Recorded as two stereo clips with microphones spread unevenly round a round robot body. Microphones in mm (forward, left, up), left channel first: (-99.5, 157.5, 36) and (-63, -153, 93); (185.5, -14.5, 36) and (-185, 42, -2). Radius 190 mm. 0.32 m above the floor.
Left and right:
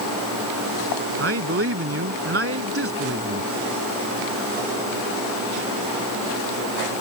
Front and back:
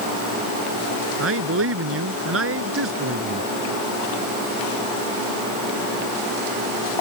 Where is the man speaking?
135° right.